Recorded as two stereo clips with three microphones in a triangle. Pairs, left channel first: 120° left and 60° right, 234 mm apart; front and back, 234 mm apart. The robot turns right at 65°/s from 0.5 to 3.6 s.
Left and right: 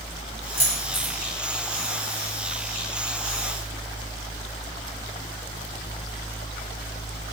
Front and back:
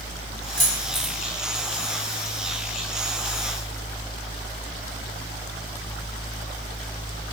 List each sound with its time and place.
0.6 s keys jangling: 85° right, 2.0 m; by 1.1 s 45° right, 2.0 m